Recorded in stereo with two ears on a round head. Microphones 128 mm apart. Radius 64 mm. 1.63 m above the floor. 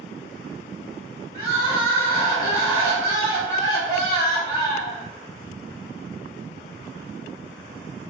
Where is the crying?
45° right (ahead or behind), 1.5 m.